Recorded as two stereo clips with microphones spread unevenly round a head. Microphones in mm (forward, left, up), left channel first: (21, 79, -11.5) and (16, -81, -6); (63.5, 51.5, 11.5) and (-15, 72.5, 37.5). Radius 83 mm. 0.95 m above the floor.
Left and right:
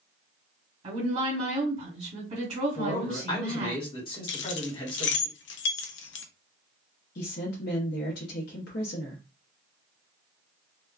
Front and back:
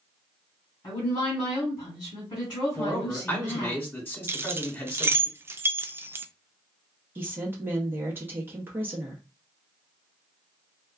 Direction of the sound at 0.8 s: 45° right.